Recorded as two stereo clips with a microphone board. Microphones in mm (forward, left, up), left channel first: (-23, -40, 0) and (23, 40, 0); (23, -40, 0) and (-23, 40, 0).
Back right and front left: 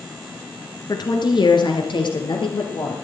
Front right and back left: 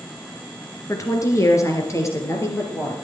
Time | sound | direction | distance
0.9 | a woman speaking | 100° right | 2.5 m